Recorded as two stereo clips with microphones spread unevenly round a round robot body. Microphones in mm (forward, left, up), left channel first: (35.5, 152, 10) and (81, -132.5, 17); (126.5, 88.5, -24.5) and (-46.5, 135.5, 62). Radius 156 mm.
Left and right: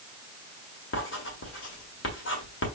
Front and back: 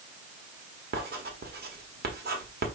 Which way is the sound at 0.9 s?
120° left.